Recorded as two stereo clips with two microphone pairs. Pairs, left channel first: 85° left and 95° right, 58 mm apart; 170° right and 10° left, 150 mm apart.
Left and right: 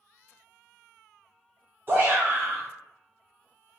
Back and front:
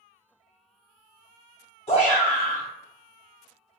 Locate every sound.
1.9 s a shout: 135° right, 0.6 m